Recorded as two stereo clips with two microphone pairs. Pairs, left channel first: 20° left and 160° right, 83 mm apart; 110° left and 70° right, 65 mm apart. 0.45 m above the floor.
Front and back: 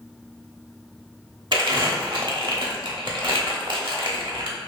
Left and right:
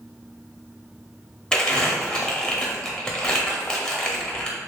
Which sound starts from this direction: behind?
Crumpling, at 1.5 s.